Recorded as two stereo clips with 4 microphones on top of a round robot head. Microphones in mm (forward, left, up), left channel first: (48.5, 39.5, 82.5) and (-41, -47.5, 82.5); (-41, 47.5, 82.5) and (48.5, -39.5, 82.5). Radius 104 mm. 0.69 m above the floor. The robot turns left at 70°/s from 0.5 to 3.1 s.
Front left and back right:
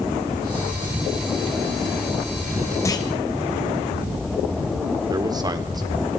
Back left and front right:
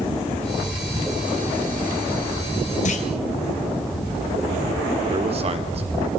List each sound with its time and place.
2.9 s a clunk: 110° left, 2 m; by 3.1 s 95° left, 2 m
5.1 s a man speaking: 80° right, 2.5 m